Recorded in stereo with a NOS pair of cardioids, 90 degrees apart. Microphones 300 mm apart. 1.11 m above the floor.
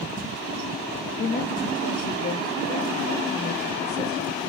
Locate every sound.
1.2 s a woman speaking: 35° left, 1.6 m